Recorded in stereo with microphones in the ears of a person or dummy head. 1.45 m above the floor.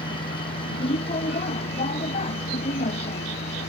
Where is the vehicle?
30° left (ahead or behind); by 3.7 s 35° left (ahead or behind).